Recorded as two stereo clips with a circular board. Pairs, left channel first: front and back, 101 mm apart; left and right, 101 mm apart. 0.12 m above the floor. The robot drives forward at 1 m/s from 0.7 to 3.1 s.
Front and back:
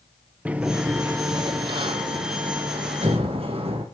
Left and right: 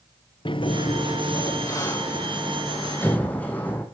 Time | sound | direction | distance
0.5 | a sliding door | 105° left | 0.9 m